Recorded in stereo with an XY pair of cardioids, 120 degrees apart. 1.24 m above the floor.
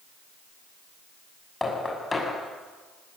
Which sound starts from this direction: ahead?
Knocking, at 1.6 s.